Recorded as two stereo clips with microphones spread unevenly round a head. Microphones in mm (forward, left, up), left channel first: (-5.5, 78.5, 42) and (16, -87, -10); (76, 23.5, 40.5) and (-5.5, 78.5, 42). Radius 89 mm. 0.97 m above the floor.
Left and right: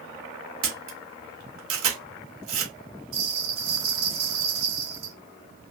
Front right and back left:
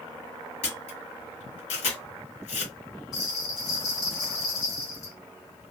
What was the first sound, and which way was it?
A camera shutter, 70° right.